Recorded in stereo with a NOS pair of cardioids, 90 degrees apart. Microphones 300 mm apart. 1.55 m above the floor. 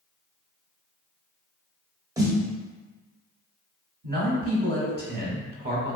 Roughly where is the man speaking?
Ahead right.